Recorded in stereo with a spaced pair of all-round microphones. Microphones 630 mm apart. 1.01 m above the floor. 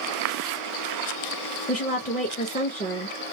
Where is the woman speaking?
15° left (ahead or behind), 0.5 m.